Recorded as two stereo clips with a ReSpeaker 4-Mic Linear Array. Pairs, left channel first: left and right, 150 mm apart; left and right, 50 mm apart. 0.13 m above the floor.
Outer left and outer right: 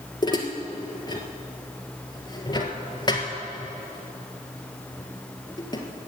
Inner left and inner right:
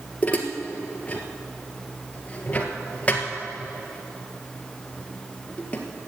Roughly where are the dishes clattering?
Left.